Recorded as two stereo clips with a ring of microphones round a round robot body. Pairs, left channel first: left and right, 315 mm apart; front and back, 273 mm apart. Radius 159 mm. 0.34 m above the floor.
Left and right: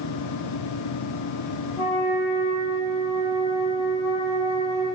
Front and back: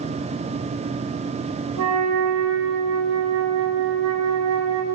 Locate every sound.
1.8 s a flute: 160° right, 3 m